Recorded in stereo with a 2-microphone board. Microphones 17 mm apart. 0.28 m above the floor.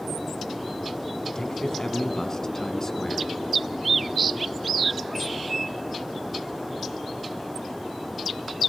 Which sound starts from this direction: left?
A man speaking, at 1.4 s.